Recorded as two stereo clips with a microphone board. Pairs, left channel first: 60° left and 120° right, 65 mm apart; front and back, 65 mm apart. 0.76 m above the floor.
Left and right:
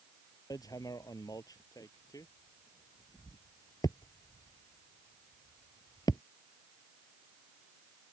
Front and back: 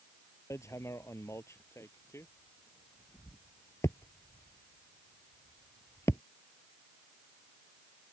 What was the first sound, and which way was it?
Hammering, 45° left.